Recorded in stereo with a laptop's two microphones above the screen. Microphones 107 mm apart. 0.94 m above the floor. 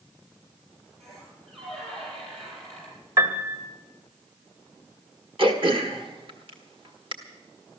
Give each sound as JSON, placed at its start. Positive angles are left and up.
{"t": 1.0, "sound": "a squeak", "side_deg": -75, "distance_m": 8.0}
{"t": 3.2, "sound": "a piano", "side_deg": -35, "distance_m": 1.7}
{"t": 5.4, "sound": "throat clearing", "side_deg": -55, "distance_m": 1.3}